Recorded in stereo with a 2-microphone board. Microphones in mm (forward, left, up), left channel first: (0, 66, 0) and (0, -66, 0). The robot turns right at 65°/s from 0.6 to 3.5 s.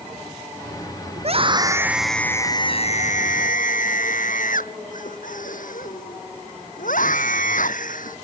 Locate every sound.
1.2 s a scream: 60° right; by 8.2 s 95° left